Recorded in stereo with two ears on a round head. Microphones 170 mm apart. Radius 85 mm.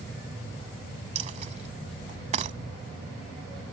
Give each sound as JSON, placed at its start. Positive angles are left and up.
{"t": 1.1, "sound": "a dropped coin", "side_deg": -40}